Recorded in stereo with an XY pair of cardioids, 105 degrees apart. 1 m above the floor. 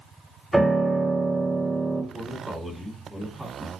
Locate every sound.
0.5 s a piano: 5° right, 1.2 m
2.1 s a man speaking: 5° right, 1.3 m